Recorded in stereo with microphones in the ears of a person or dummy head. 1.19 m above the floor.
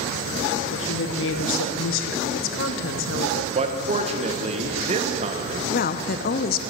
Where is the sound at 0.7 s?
65° left (ahead or behind), 0.9 m.